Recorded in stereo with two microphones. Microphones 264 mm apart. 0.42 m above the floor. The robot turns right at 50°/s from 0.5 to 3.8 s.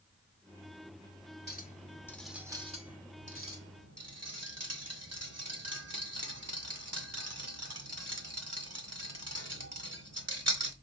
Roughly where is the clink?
Left.